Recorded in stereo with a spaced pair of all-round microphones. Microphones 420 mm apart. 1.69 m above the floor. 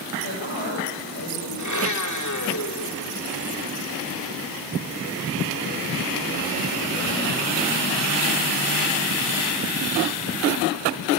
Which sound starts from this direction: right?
A woman speaking, at 0.2 s.